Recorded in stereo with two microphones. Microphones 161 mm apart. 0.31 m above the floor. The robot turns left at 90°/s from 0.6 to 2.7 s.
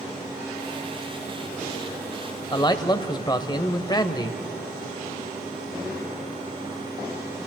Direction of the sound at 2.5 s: 30° left (ahead or behind).